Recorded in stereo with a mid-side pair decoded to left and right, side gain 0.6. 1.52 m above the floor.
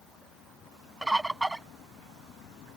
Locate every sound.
1.0 s a bird: 10° right